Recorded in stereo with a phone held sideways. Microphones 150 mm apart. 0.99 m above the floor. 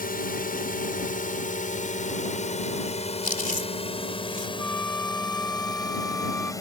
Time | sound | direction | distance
0.0 | a drone | 75° left (ahead or behind) | ?
3.2 | chewing | 65° left (ahead or behind) | ?
4.6 | a flute | 5° left (ahead or behind) | ?